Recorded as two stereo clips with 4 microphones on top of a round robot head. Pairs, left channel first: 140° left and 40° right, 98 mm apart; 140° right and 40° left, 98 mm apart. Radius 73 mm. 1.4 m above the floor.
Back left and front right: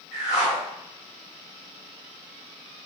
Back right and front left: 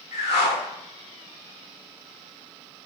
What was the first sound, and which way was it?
A whoosh, 130° right.